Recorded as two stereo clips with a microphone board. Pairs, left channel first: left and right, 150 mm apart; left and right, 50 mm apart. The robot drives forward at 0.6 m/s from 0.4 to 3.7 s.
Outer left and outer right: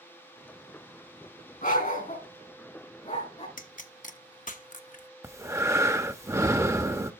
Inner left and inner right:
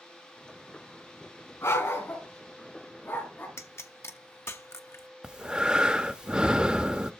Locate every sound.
1.6 s a dog barking: 65° left (ahead or behind), 3 m; by 3.5 s 50° left (ahead or behind), 3.5 m
3.6 s a pop: 65° left (ahead or behind), 0.9 m; by 5.1 s 60° left (ahead or behind), 0.9 m
5.2 s breathing: 20° right (ahead or behind), 0.7 m